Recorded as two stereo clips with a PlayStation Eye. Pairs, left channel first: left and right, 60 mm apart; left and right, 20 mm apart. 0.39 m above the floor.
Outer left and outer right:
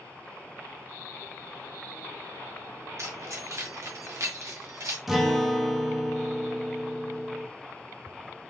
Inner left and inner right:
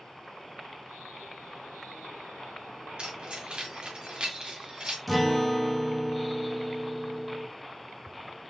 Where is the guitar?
5° right (ahead or behind), 1.2 m.